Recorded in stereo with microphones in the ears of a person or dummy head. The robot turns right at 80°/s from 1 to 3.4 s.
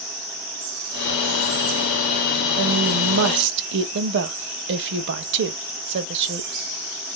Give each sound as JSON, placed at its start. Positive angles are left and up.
{"t": 2.6, "sound": "a woman speaking", "azimuth_deg": -125, "distance_m": 0.7}